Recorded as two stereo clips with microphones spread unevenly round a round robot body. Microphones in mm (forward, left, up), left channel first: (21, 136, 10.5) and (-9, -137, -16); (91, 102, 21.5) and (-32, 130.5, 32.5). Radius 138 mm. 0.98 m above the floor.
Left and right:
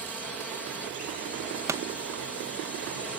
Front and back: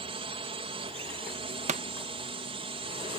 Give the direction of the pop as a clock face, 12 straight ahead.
6 o'clock.